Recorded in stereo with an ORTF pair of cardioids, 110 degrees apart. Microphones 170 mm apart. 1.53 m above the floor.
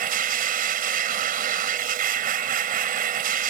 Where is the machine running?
60° right.